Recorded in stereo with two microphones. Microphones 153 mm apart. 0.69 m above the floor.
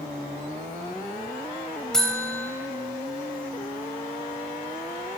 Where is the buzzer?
5° left (ahead or behind), 3.5 m.